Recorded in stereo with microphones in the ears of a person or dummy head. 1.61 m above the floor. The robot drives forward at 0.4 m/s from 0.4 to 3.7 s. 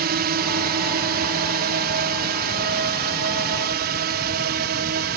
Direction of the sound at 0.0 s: 50° right (ahead or behind).